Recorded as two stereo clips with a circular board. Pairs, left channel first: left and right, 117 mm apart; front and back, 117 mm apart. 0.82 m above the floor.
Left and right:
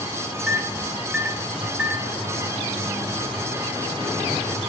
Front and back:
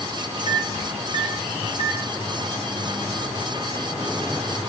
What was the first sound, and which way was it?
A microwave, 10° right.